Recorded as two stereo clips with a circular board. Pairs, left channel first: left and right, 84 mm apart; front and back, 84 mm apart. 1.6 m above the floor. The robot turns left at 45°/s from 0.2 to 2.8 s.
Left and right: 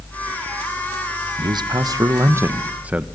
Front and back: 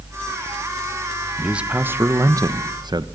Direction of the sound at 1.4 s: 95° right.